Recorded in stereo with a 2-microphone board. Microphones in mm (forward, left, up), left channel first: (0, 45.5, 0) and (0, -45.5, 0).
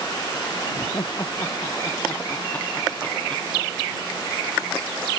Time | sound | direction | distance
0.7 | laughter | 40° left (ahead or behind) | ?